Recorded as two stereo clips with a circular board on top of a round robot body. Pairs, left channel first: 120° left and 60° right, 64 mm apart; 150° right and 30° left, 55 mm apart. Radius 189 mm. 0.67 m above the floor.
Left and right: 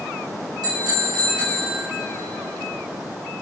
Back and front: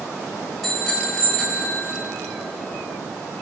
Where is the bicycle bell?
65° right, 3 m; by 1.8 s 80° right, 3.5 m.